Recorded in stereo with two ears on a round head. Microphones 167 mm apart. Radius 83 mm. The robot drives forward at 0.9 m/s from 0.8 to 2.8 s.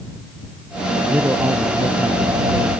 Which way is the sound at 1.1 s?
10° right (ahead or behind).